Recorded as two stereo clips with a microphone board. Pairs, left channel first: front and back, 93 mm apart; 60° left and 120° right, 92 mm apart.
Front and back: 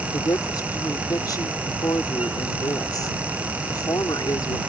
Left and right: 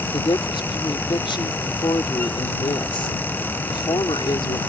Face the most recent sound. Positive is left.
turn(degrees=40)